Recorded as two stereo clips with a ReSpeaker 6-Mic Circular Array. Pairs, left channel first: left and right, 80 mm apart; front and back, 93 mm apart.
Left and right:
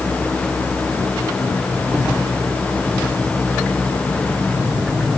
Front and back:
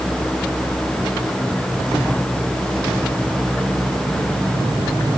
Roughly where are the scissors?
No scissors in this recording.